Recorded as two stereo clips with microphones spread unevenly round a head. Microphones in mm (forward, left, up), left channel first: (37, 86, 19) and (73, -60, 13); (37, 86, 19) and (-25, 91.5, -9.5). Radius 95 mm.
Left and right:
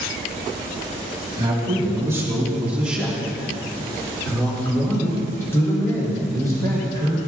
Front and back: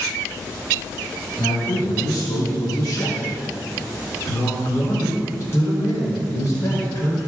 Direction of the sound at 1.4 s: 15° right.